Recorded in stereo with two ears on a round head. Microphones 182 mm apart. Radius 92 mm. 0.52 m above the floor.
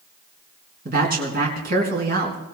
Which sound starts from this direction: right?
A woman speaking, at 0.8 s.